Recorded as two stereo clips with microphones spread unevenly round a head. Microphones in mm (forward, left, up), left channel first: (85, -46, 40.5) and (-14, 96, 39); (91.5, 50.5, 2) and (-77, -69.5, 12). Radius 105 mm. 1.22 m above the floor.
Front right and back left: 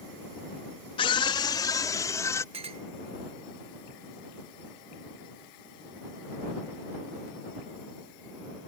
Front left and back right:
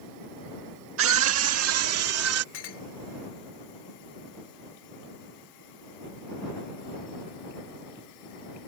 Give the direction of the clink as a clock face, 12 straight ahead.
10 o'clock.